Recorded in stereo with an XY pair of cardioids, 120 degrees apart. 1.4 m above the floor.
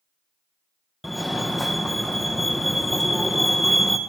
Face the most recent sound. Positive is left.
turn(degrees=5)